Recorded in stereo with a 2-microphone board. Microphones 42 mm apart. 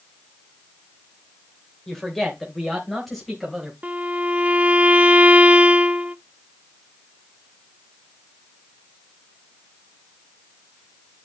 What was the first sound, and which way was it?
A woman speaking, 10° left (ahead or behind).